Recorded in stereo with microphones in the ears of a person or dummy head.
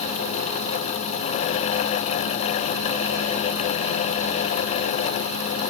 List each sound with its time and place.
Only background noise.